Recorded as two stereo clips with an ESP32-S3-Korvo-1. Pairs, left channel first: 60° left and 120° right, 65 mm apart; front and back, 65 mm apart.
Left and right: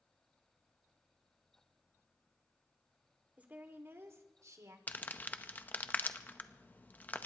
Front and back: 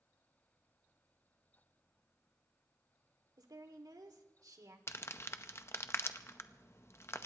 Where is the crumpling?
10° left, 0.7 m.